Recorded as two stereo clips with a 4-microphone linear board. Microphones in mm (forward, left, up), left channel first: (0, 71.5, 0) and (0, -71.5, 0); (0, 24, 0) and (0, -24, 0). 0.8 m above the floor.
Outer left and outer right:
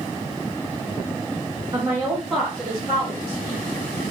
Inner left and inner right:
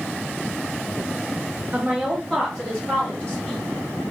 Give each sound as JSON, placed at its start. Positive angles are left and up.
{"t": 1.7, "sound": "a woman speaking", "side_deg": -30, "distance_m": 0.9}